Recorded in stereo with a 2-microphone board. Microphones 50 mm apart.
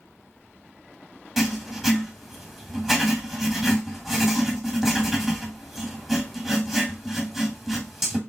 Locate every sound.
1.4 s writing: centre (ahead or behind), 1.7 m